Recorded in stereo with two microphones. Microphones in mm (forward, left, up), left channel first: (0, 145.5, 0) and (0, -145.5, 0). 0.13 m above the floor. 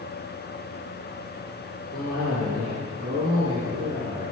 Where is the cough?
15° right (ahead or behind), 2 m.